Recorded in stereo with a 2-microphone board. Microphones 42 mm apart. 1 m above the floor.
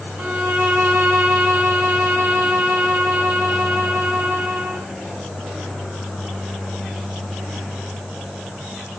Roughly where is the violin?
Right.